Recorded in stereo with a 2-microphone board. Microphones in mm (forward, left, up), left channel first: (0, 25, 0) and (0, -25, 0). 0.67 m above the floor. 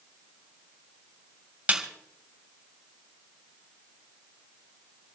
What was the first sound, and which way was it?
A snare drum, 25° right (ahead or behind).